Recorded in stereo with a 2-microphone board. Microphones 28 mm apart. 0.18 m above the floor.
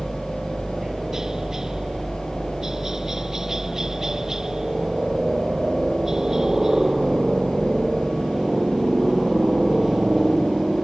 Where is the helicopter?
20° right (ahead or behind).